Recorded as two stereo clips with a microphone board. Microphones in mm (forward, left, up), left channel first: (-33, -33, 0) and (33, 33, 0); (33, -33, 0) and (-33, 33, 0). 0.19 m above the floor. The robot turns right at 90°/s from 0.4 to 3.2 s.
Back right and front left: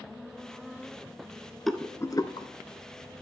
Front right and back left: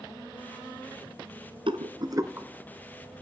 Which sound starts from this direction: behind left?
A rattle, at 1.7 s.